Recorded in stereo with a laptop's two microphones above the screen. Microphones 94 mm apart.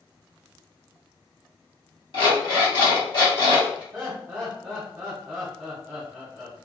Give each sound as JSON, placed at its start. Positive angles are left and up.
{"t": 2.1, "sound": "an alarm clock", "side_deg": 55, "distance_m": 1.2}
{"t": 3.9, "sound": "laughter", "side_deg": -25, "distance_m": 1.2}